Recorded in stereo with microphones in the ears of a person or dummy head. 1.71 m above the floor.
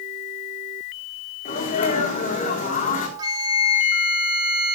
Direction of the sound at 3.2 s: 30° right (ahead or behind).